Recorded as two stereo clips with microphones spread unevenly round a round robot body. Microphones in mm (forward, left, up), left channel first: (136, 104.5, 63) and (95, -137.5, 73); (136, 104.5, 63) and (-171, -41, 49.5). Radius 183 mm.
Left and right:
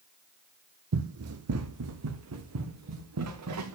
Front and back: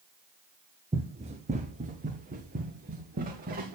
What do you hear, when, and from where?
0.9 s running footsteps: 80° right, 0.9 m; by 3.8 s 85° right, 2.5 m